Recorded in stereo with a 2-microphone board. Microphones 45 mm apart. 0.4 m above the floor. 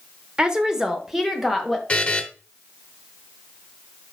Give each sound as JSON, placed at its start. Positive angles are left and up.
{"t": 0.4, "sound": "a woman speaking", "side_deg": -20, "distance_m": 0.9}
{"t": 1.9, "sound": "a buzzer", "side_deg": 25, "distance_m": 0.9}